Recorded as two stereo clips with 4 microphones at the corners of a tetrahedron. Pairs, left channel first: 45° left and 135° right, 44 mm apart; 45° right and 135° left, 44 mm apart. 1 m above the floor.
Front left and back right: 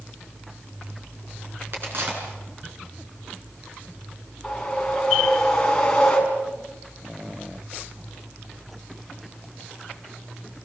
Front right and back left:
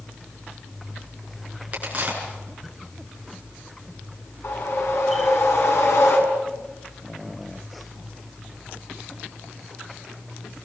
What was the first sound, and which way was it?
A crack, 170° right.